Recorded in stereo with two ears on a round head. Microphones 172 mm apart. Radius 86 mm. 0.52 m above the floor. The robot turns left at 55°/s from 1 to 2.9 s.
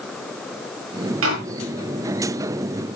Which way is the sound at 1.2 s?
80° right.